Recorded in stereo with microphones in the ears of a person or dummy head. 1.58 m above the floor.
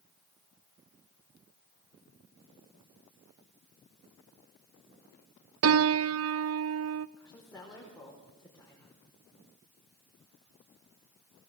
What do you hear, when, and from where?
5.6 s a piano: 75° right (ahead or behind), 0.6 m
7.2 s a woman speaking: 10° left (ahead or behind), 4.5 m